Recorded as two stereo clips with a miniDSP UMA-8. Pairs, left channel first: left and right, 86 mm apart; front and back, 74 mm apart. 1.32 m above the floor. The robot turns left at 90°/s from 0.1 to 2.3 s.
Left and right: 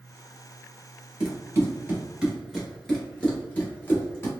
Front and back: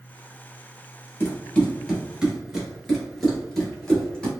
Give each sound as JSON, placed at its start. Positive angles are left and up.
{"t": 1.2, "sound": "running footsteps", "azimuth_deg": -25, "distance_m": 1.5}